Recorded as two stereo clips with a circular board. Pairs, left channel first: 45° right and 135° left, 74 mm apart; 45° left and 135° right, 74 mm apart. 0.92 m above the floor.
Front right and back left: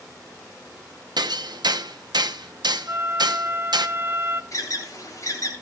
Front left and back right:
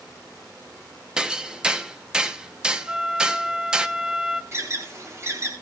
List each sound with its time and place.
1.2 s hammering: 145° left, 0.9 m
2.9 s a flute: 155° left, 0.7 m
4.5 s an alarm: 85° right, 3.5 m